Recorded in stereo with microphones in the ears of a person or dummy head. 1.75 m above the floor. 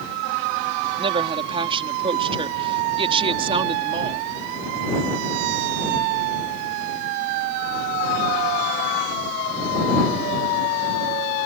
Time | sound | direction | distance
1.0 | a woman speaking | 30° right (ahead or behind) | ?